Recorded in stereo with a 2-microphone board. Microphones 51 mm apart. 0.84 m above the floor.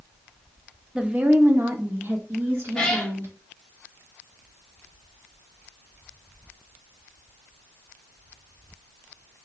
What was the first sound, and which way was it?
A woman speaking, 20° right (ahead or behind).